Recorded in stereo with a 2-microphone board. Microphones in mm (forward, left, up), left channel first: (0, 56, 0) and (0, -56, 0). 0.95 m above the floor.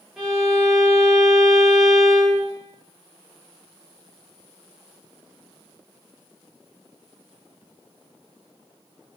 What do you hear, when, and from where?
0.2 s a violin: 5° right (ahead or behind), 1.0 m